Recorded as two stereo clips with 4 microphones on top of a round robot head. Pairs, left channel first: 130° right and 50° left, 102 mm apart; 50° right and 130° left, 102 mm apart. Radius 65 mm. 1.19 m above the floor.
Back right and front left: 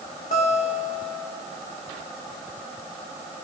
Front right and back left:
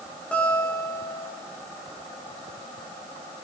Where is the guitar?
130° right, 4 m.